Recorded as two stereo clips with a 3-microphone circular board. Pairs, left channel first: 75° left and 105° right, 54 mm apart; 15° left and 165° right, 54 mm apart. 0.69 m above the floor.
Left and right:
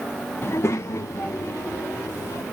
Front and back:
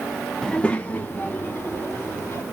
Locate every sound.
0.4 s a child speaking: 95° left, 0.7 m; by 2.4 s 55° left, 2 m